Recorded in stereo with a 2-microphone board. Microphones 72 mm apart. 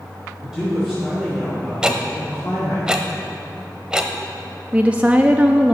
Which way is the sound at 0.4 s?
10° right (ahead or behind).